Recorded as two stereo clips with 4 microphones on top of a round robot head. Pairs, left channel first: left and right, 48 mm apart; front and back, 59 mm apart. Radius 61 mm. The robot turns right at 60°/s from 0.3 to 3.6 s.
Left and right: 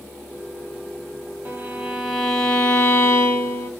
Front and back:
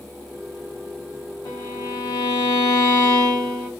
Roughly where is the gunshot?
I don't hear a gunshot.